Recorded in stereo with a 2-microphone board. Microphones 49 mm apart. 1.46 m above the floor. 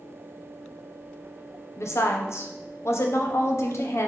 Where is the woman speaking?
65° left (ahead or behind), 0.6 m.